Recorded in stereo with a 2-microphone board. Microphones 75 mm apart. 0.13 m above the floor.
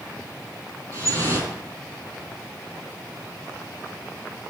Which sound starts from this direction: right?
Dripping, at 0.9 s.